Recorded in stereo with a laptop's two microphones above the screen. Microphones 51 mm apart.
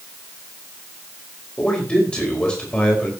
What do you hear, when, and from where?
1.6 s a man speaking: 20° left (ahead or behind), 4.5 m